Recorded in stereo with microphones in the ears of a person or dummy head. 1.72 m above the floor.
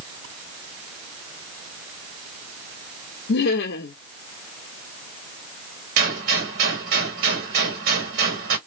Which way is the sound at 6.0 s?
50° right (ahead or behind).